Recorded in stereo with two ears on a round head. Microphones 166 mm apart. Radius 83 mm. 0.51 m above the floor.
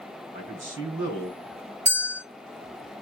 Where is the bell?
40° right (ahead or behind), 2 m.